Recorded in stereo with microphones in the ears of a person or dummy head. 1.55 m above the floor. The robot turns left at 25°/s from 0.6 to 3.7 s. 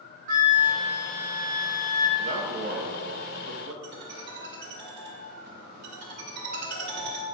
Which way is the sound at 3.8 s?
55° right (ahead or behind).